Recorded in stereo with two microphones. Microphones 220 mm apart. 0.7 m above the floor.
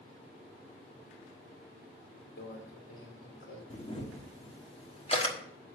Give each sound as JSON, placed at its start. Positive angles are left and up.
{"t": 2.4, "sound": "a microwave", "side_deg": 70, "distance_m": 2.0}
{"t": 3.7, "sound": "a camera shutter", "side_deg": 25, "distance_m": 1.2}